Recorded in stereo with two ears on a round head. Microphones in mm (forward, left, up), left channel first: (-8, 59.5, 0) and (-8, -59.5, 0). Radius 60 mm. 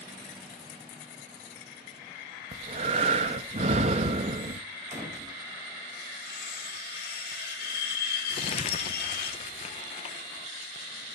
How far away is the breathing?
About 0.9 m.